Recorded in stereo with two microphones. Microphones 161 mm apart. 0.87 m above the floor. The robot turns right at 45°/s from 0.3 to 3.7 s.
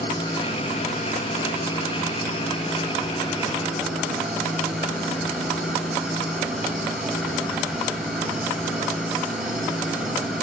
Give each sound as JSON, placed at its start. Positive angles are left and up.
{"t": 0.0, "sound": "an engine running", "azimuth_deg": 30, "distance_m": 3.5}